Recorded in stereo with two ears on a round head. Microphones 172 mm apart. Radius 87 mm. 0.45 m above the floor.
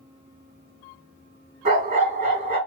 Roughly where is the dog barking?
Right.